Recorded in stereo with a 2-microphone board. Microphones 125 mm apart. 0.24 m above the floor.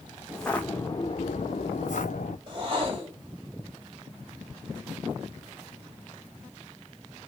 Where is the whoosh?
35° right (ahead or behind), 1.9 m.